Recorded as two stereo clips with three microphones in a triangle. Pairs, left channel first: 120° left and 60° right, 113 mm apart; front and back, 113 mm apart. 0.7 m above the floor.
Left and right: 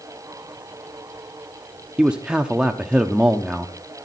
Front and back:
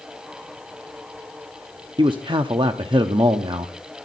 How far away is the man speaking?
About 0.8 m.